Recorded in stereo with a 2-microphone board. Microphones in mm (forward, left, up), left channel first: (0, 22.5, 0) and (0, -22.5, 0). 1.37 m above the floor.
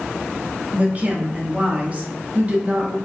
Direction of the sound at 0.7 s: 30° right (ahead or behind).